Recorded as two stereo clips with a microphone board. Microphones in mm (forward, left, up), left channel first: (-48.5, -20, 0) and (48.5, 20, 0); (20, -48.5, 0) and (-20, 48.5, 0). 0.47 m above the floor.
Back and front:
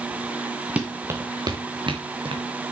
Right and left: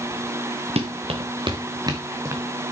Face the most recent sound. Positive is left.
turn(degrees=50)